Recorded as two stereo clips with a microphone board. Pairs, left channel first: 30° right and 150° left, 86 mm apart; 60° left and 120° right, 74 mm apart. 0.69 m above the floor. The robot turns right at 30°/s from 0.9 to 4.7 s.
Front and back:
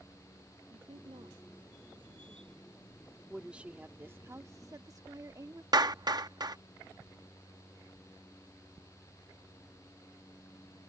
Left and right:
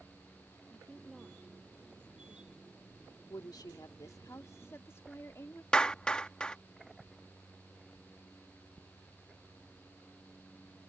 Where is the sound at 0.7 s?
145° left; by 2.6 s 165° right.